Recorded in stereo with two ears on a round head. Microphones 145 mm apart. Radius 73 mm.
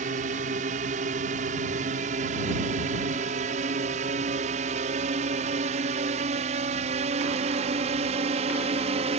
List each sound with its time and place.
0.0 s a drone: 50° right (ahead or behind); by 9.2 s 40° right (ahead or behind)